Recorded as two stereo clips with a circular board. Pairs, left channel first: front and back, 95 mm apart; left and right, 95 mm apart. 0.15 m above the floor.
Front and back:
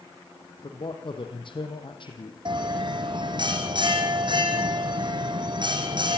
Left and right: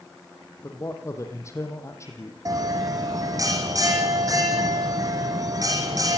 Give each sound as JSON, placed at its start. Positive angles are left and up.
{"t": 0.6, "sound": "a man speaking", "azimuth_deg": 30, "distance_m": 5.0}
{"t": 2.5, "sound": "a bell", "azimuth_deg": -145, "distance_m": 4.0}